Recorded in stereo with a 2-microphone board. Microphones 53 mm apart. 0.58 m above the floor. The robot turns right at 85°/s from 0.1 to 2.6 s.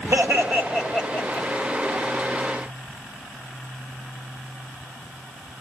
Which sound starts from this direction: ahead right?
Laughter, at 0.1 s.